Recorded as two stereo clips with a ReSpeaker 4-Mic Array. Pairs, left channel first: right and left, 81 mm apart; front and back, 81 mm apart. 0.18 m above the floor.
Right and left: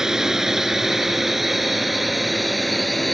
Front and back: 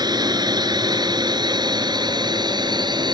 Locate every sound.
0.0 s a drone: 170° left; by 3.1 s straight behind